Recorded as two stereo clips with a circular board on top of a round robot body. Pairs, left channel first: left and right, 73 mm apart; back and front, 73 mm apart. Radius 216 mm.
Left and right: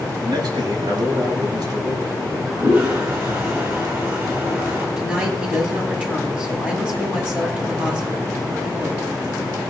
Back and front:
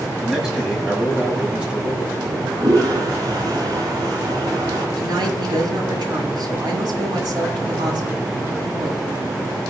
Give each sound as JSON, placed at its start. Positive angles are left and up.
{"t": 0.2, "sound": "a man speaking", "azimuth_deg": -85, "distance_m": 6.0}
{"t": 2.2, "sound": "a toilet flushing", "azimuth_deg": -30, "distance_m": 6.5}
{"t": 5.0, "sound": "a woman speaking", "azimuth_deg": -15, "distance_m": 6.5}